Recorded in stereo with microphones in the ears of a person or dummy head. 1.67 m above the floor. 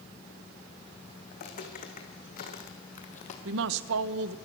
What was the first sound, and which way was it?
Footsteps, 45° left (ahead or behind).